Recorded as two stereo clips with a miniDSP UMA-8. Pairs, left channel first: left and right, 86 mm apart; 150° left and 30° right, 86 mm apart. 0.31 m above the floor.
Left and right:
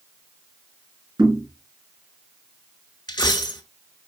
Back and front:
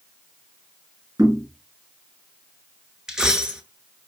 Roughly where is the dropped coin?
Ahead left.